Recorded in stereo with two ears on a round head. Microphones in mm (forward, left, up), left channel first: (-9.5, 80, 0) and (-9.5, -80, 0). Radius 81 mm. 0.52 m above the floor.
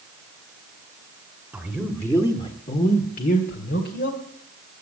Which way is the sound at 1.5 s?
5° right (ahead or behind).